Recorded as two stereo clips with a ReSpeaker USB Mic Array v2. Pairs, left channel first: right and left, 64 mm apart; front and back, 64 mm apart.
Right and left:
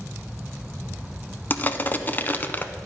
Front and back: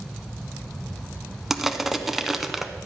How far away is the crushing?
About 0.6 m.